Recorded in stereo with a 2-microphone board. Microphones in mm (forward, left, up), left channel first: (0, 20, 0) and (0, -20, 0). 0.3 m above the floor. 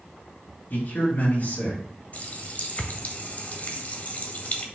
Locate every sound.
0.7 s a man speaking: 55° left (ahead or behind), 3.5 m
2.1 s a running tap: 40° left (ahead or behind), 1.0 m